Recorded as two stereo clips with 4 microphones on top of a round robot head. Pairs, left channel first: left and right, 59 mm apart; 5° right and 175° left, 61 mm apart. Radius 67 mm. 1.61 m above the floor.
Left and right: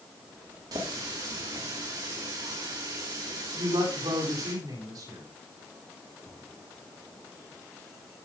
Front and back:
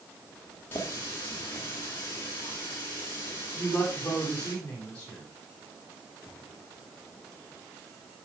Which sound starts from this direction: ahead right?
A running tap, at 0.7 s.